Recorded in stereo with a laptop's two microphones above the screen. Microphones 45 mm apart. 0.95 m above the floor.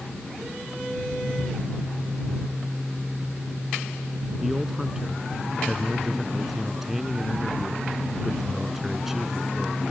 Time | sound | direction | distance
4.4 | a man speaking | 5° right (ahead or behind) | ?